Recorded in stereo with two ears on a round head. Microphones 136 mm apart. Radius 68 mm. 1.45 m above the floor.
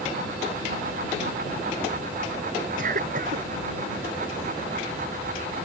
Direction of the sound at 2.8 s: 55° right (ahead or behind).